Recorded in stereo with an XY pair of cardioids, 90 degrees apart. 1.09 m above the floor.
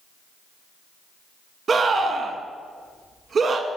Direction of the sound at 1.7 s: 45° right.